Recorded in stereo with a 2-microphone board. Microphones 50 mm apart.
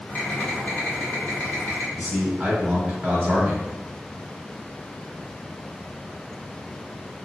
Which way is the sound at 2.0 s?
35° right (ahead or behind).